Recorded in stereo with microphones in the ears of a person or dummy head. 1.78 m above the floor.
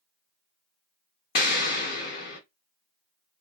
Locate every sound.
1.4 s an explosion: 55° left (ahead or behind), 0.7 m